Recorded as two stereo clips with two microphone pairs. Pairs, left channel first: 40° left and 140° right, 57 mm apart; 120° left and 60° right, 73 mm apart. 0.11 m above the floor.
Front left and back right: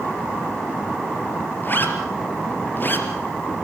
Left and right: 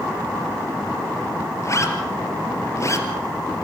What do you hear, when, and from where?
1.6 s a zipper: 85° left, 2.5 m